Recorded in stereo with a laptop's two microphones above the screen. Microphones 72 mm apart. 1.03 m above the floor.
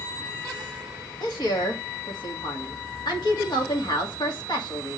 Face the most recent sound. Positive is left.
turn(degrees=75)  # may be behind; listen again after turning